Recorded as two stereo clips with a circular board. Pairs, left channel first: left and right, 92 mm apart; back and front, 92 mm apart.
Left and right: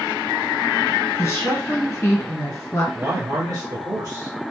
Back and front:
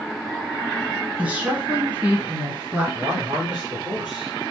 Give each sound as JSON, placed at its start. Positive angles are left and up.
{"t": 1.2, "sound": "a woman speaking", "azimuth_deg": 65, "distance_m": 1.8}
{"t": 3.0, "sound": "a man speaking", "azimuth_deg": -90, "distance_m": 1.4}